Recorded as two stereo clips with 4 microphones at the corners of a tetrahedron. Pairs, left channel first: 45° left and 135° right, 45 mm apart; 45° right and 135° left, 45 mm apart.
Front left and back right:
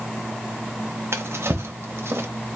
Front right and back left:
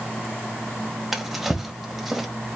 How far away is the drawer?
About 1.0 m.